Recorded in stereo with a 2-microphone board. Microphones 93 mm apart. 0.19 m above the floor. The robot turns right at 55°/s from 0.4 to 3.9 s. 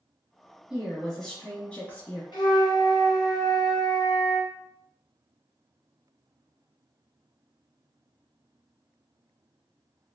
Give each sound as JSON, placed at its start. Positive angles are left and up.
{"t": 0.7, "sound": "a woman speaking", "side_deg": -10, "distance_m": 1.2}
{"t": 2.3, "sound": "a flute", "azimuth_deg": 95, "distance_m": 1.5}